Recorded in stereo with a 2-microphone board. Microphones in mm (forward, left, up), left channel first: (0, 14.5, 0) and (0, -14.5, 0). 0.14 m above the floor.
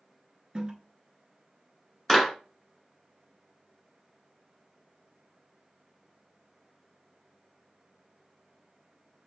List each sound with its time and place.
0.6 s a toilet flushing: 30° right (ahead or behind), 0.5 m
2.1 s a clap: 15° left (ahead or behind), 1.6 m